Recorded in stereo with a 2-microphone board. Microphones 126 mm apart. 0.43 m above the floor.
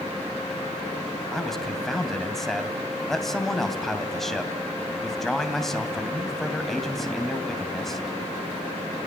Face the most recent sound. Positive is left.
turn(degrees=0)  # may be behind; listen again after turning